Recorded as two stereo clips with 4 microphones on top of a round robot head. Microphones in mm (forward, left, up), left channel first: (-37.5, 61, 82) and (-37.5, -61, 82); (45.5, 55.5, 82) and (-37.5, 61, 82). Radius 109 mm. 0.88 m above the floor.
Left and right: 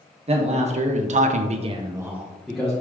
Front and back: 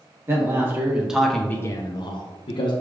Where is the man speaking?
125° right, 1.1 m; by 2.7 s 5° left, 0.9 m.